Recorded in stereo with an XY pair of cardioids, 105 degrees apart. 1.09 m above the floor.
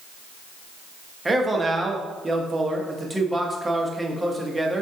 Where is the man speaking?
20° right, 0.9 m.